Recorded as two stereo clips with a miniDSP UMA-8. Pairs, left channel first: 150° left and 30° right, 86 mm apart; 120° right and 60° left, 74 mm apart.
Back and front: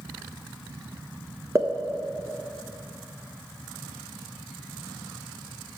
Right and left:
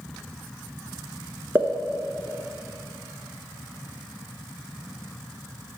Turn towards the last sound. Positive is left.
turn(degrees=10)